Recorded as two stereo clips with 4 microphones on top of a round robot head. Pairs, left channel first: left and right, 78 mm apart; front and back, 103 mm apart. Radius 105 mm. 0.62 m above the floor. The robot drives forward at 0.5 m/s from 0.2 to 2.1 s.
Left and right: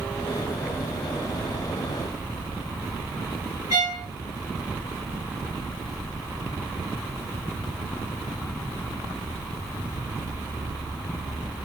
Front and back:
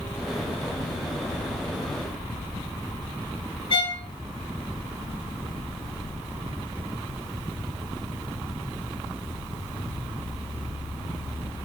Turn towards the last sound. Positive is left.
turn(degrees=-35)